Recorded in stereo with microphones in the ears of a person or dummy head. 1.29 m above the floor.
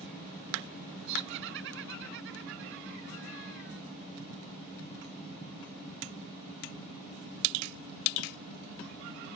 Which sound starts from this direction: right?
Laughter, at 1.1 s.